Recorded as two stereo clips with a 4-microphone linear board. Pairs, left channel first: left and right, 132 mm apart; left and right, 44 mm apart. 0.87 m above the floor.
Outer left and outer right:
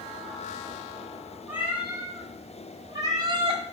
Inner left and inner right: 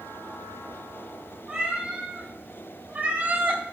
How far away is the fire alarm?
No fire alarm in this recording.